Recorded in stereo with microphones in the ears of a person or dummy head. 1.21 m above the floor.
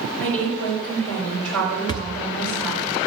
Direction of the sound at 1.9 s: 20° left (ahead or behind).